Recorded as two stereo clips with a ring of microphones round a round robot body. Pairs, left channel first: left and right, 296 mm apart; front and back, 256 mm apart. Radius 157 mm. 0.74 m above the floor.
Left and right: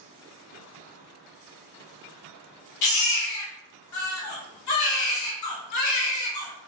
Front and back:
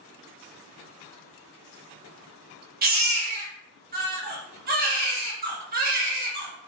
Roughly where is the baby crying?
Behind left.